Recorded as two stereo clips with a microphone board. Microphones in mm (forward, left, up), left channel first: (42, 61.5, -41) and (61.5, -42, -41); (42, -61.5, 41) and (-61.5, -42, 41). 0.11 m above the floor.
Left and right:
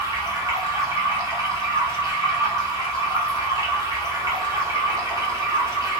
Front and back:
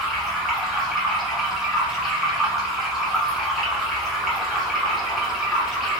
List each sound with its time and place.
0.0 s running water: 105° right, 1.0 m